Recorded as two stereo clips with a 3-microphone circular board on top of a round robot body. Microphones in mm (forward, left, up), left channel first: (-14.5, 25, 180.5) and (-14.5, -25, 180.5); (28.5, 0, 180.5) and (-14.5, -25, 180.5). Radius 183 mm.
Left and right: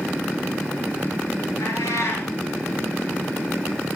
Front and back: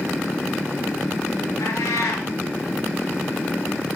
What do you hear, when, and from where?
1.6 s a cat meowing: 60° left, 1.5 m